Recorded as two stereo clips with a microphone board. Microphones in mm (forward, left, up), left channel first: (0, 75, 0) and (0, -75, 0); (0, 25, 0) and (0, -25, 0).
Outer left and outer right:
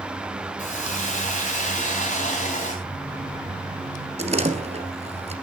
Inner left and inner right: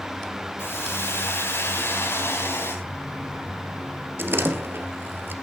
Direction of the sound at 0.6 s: 55° left (ahead or behind).